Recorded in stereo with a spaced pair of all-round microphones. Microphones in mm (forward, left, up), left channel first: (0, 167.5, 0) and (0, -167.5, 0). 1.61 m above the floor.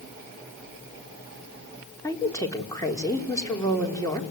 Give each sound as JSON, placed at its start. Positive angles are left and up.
{"t": 2.0, "sound": "a woman speaking", "side_deg": 10, "distance_m": 4.0}